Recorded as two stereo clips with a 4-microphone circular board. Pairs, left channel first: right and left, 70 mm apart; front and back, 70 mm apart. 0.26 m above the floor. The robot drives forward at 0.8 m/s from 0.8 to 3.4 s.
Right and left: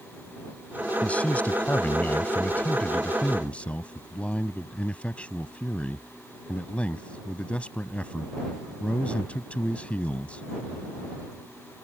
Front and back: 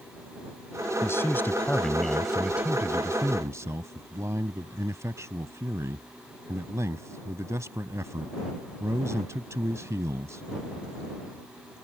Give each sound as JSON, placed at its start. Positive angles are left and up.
{"t": 1.0, "sound": "a man speaking", "azimuth_deg": -25}